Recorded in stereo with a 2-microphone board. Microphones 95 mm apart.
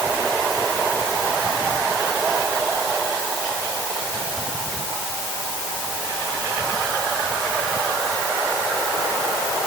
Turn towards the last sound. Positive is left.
No sound to turn to.